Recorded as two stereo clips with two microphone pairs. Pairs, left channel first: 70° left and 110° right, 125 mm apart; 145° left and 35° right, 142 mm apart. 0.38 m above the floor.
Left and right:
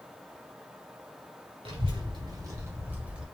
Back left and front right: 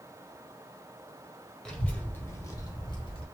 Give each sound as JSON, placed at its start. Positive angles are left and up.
{"t": 1.6, "sound": "a child speaking", "azimuth_deg": -130, "distance_m": 1.6}